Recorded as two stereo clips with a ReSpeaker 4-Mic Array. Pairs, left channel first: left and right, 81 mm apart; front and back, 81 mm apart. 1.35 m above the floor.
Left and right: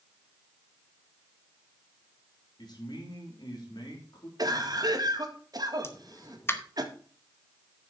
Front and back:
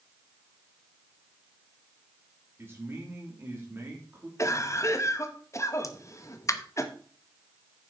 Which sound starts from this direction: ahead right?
A cough, at 4.4 s.